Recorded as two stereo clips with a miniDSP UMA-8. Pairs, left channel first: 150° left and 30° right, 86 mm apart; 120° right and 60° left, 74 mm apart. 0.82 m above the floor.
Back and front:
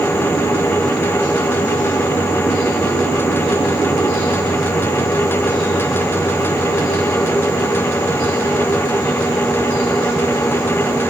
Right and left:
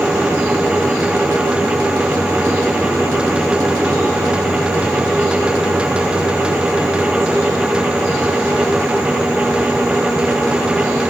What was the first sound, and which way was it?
Only background noise.